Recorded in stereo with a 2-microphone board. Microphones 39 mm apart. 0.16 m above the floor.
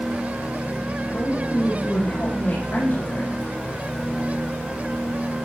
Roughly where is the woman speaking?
Left.